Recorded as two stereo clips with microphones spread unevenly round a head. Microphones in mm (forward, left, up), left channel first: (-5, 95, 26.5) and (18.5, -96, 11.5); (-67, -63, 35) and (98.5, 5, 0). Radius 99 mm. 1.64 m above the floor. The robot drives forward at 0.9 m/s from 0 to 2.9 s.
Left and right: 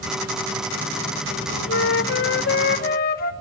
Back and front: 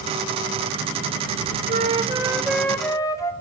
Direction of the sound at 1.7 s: 75° left.